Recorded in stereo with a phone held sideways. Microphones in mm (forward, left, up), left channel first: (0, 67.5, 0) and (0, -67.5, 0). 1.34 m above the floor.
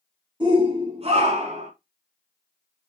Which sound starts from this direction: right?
A shout, at 0.4 s.